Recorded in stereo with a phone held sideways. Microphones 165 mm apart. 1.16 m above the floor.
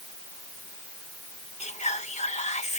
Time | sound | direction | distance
1.6 | whispering | 45° left (ahead or behind) | ?